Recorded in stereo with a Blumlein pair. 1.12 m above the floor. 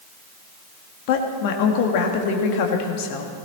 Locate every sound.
1.1 s a woman speaking: 45° left, 2.0 m